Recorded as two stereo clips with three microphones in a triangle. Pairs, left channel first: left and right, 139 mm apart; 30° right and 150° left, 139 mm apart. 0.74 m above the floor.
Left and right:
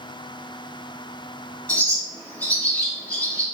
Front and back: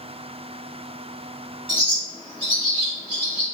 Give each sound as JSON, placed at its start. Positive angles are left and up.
{"t": 1.7, "sound": "a bird", "azimuth_deg": 15, "distance_m": 1.7}